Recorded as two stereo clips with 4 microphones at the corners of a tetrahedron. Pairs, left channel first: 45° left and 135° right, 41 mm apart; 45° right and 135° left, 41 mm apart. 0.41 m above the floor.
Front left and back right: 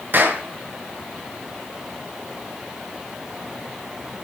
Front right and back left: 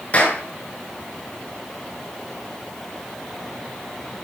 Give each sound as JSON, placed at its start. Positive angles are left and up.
{"t": 0.1, "sound": "a clap", "azimuth_deg": -100, "distance_m": 5.0}